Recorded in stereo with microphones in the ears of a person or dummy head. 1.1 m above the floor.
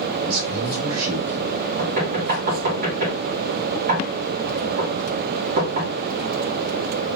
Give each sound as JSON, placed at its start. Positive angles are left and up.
{"t": 0.2, "sound": "a man speaking", "side_deg": -75, "distance_m": 1.7}
{"t": 1.8, "sound": "knocking", "side_deg": -45, "distance_m": 1.4}